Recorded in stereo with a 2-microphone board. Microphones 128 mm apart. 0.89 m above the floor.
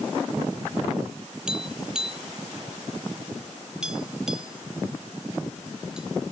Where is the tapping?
5° right (ahead or behind).